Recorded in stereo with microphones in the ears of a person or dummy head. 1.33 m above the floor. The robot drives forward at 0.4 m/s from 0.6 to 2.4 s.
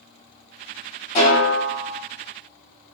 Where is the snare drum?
50° left (ahead or behind), 1.4 m; by 2.0 s 45° left (ahead or behind), 1.5 m.